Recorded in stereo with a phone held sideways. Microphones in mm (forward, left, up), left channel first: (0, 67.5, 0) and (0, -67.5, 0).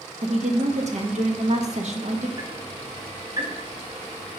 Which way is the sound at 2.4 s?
35° right (ahead or behind).